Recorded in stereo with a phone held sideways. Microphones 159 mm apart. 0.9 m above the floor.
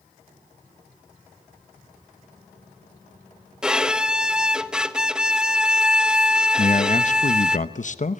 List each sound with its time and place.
3.6 s a violin: 5° right (ahead or behind), 1.1 m
6.6 s a man speaking: 50° left (ahead or behind), 0.8 m